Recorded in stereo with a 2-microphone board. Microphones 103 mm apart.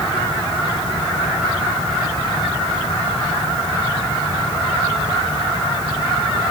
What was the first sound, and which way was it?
Only background noise.